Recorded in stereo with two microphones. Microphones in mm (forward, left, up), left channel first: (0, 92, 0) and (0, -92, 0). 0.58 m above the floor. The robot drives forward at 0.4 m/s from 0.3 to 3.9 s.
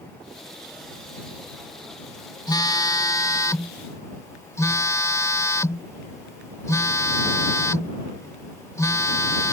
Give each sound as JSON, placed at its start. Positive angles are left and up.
{"t": 2.5, "sound": "a phone buzzing", "side_deg": 20}